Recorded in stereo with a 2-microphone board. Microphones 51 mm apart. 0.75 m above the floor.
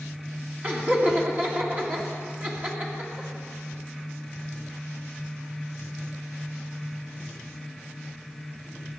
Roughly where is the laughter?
Right.